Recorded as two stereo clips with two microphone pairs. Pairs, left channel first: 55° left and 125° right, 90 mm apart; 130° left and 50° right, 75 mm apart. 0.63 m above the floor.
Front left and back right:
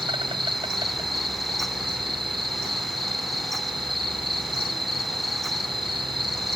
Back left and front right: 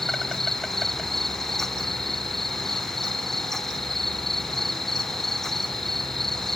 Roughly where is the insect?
Behind right.